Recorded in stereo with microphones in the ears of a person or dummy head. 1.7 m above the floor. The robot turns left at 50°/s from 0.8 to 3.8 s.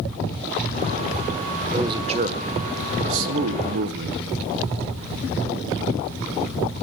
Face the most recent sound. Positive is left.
turn(degrees=-120)